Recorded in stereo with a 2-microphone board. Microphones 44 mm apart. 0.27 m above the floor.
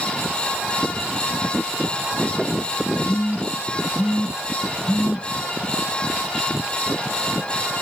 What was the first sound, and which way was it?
A phone buzzing, 40° right (ahead or behind).